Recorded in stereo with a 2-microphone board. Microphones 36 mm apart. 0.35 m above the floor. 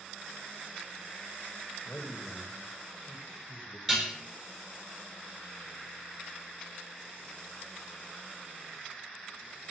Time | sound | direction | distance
1.9 | a man speaking | 35° left (ahead or behind) | 1.4 m
3.9 | dishes clattering | centre (ahead or behind) | 4 m